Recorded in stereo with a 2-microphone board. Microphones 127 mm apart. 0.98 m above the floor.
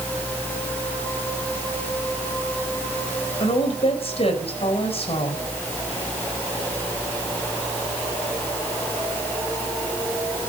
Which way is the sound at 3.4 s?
55° left (ahead or behind).